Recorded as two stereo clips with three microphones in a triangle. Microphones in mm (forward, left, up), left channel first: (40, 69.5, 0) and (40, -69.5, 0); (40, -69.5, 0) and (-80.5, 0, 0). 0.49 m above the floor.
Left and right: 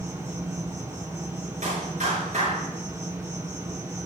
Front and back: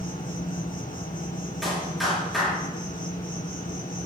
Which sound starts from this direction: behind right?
A clap, at 1.6 s.